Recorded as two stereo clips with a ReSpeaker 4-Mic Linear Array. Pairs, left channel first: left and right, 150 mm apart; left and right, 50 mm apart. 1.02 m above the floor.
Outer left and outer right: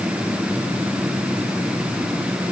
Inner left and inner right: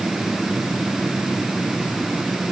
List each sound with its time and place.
Only background noise.